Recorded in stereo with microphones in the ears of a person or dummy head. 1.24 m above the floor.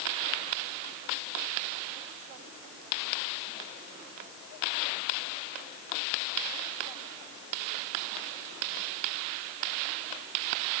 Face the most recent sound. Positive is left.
No sound to turn to.